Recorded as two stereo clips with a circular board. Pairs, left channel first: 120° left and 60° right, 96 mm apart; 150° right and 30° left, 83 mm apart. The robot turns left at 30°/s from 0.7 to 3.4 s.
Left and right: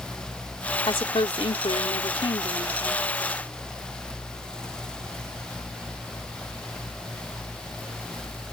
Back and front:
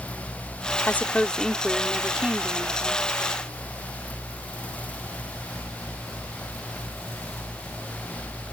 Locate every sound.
0.9 s a woman speaking: 145° left; by 3.1 s 75° left